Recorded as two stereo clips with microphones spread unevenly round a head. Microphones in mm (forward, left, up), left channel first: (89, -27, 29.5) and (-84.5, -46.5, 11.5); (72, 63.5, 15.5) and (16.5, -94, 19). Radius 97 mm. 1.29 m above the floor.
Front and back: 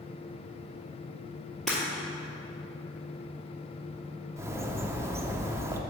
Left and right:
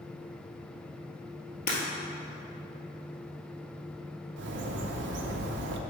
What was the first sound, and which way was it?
Breaking glass, 90° left.